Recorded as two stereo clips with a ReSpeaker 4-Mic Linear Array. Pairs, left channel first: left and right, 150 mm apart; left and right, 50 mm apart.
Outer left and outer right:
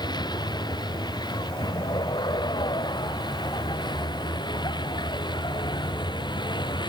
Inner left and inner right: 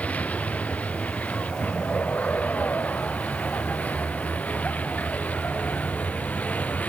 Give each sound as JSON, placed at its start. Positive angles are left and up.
{"t": 0.0, "sound": "a vehicle", "side_deg": 30}